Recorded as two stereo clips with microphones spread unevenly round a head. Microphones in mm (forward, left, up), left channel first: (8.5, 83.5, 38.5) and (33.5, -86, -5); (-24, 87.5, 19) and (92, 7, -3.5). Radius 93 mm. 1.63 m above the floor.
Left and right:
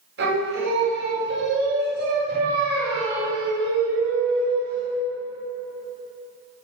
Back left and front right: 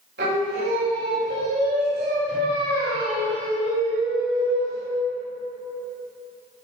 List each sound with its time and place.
0.2 s singing: 60° right, 3.5 m